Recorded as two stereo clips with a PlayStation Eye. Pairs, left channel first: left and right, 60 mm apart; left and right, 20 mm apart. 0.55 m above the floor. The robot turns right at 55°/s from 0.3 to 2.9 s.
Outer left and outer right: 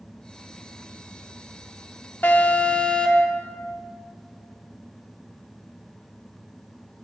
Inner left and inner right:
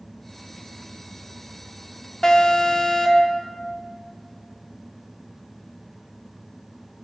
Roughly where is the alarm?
Left.